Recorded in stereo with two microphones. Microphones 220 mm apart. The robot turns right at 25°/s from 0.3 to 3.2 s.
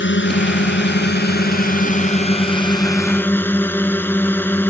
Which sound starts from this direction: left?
A drone, at 0.0 s.